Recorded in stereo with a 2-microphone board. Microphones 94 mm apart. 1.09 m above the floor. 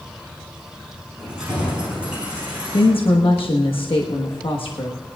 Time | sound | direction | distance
1.2 | keys jangling | 10° right (ahead or behind) | 7 m
2.7 | a woman speaking | 75° left (ahead or behind) | 1.4 m